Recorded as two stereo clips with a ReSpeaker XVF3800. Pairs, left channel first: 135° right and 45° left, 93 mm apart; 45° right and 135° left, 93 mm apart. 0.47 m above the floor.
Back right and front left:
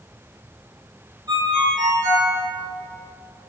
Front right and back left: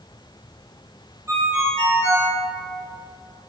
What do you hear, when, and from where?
1.3 s a ringtone: 80° left, 0.9 m